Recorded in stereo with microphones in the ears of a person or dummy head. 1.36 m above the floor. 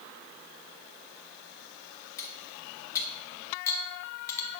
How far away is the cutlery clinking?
About 0.6 m.